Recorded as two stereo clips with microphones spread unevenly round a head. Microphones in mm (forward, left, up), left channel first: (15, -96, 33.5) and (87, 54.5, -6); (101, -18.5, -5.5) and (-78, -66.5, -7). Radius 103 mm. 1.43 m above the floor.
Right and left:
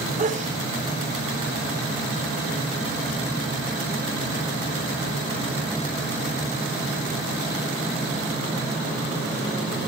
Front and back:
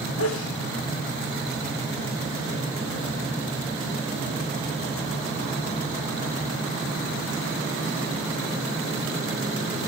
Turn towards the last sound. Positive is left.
turn(degrees=20)